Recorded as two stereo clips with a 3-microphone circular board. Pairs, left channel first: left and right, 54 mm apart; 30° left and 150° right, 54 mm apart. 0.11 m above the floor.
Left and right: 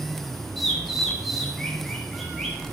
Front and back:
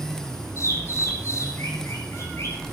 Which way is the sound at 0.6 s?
Straight ahead.